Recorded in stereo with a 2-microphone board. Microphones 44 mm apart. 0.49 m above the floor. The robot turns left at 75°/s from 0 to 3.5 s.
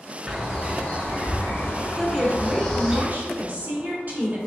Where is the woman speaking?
Straight ahead, 1.2 m; by 4.4 s 115° right, 1.2 m.